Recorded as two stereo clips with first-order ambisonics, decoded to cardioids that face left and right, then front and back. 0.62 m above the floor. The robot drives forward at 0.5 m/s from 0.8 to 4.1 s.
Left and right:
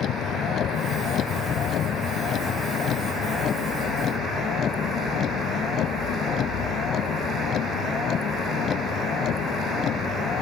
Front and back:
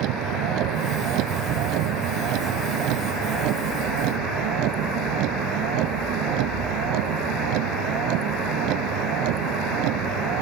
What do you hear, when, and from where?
0.0 s a vehicle: 145° left; by 10.4 s 150° left